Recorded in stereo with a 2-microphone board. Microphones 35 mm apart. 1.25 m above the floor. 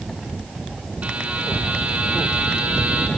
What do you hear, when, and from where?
1.0 s a buzzer: 45° right (ahead or behind), 5 m